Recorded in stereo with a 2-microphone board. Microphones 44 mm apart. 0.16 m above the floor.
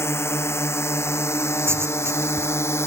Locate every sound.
0.0 s a drone: 75° left (ahead or behind)
1.6 s writing: 70° right (ahead or behind)